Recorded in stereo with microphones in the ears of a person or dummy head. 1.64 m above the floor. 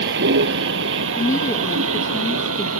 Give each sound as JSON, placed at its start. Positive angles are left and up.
{"t": 0.0, "sound": "a vehicle", "side_deg": -65}
{"t": 1.2, "sound": "a woman speaking", "side_deg": 20}